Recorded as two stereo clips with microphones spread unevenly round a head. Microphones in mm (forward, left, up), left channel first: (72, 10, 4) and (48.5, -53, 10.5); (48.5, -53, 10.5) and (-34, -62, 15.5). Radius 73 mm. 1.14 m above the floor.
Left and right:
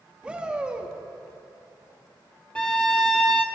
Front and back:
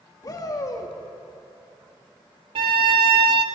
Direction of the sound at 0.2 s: 35° right.